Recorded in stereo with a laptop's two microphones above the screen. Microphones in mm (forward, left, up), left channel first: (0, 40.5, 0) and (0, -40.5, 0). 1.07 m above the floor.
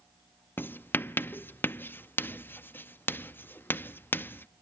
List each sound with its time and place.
0.6 s writing: 25° left (ahead or behind), 0.7 m